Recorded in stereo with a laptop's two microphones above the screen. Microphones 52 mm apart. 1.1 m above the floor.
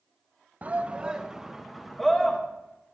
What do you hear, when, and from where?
0.6 s a shout: 30° right (ahead or behind), 0.9 m; by 2.4 s 5° left (ahead or behind), 1.7 m